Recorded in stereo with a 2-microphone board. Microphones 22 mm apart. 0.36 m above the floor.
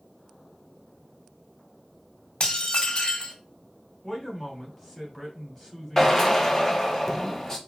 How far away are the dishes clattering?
About 0.9 m.